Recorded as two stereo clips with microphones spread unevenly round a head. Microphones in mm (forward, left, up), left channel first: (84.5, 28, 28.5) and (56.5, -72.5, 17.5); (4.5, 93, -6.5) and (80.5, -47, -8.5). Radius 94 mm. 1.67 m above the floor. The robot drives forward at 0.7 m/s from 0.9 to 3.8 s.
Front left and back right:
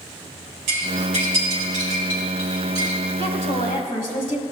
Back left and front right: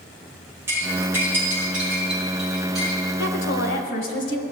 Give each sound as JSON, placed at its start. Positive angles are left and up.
{"t": 0.7, "sound": "cutlery clinking", "azimuth_deg": -140, "distance_m": 4.0}
{"t": 3.2, "sound": "a woman speaking", "azimuth_deg": 125, "distance_m": 1.1}